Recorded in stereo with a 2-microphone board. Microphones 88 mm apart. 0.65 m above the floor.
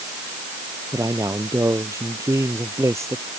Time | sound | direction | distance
0.9 | a man speaking | 35° right (ahead or behind) | ?